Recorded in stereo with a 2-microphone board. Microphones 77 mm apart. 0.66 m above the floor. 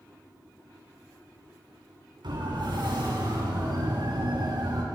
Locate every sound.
2.2 s a siren: 80° right, 8 m; by 4.8 s 65° right (ahead or behind), 5.5 m